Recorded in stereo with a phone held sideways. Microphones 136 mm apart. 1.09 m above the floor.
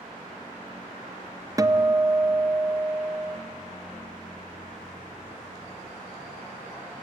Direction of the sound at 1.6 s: 25° right (ahead or behind).